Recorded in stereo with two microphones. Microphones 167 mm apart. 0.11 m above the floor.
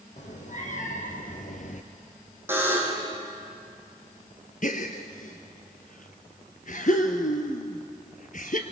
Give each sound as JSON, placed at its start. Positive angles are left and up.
{"t": 0.2, "sound": "a cat meowing", "side_deg": 50, "distance_m": 3.0}
{"t": 2.5, "sound": "a buzzer", "side_deg": -15, "distance_m": 4.5}
{"t": 4.6, "sound": "a gasp", "side_deg": 55, "distance_m": 1.7}